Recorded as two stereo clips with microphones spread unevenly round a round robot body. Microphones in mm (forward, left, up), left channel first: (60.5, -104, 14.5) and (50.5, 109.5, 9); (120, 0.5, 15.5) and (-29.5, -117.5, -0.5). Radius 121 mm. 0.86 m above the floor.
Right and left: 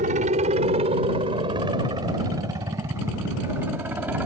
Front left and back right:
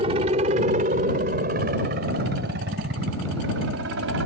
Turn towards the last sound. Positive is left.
turn(degrees=175)